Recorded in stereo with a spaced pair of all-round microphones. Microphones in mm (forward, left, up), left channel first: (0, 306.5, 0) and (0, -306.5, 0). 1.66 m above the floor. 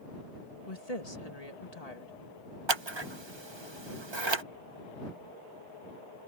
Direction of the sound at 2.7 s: 45° right (ahead or behind).